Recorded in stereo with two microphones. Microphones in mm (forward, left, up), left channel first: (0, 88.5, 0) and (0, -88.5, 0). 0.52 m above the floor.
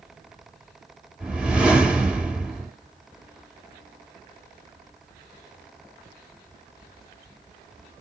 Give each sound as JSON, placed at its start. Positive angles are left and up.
{"t": 1.2, "sound": "a whoosh", "side_deg": -5, "distance_m": 2.0}